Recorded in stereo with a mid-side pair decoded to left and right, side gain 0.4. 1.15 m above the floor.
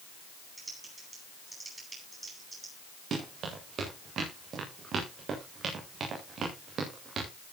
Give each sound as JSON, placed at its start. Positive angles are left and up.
{"t": 0.6, "sound": "typing on a keyboard", "azimuth_deg": -30, "distance_m": 9.5}
{"t": 3.1, "sound": "running footsteps", "azimuth_deg": -60, "distance_m": 8.0}